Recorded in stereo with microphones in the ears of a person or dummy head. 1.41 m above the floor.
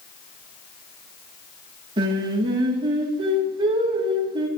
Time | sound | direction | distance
2.0 | singing | 25° right (ahead or behind) | 1.6 m